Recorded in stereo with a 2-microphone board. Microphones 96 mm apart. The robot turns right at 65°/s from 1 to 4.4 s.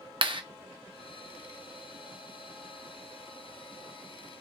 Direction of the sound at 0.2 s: 55° right (ahead or behind).